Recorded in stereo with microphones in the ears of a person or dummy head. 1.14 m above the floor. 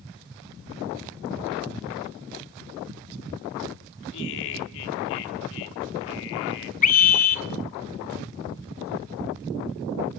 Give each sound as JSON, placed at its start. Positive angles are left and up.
{"t": 4.1, "sound": "laughter", "side_deg": 65, "distance_m": 2.5}
{"t": 6.8, "sound": "a scream", "side_deg": 45, "distance_m": 1.9}